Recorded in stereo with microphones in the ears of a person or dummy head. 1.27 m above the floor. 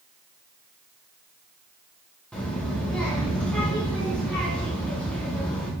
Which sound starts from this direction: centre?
A child speaking, at 2.3 s.